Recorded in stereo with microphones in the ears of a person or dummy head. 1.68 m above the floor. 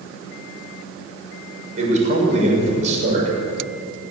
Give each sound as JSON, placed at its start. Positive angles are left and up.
{"t": 1.8, "sound": "a man speaking", "side_deg": -40, "distance_m": 7.0}